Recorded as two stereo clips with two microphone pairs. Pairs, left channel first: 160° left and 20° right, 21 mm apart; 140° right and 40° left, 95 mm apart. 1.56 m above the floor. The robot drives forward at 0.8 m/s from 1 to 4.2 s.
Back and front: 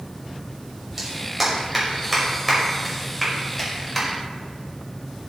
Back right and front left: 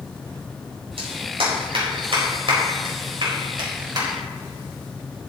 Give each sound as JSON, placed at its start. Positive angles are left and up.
{"t": 1.0, "sound": "a clap", "azimuth_deg": 55, "distance_m": 5.0}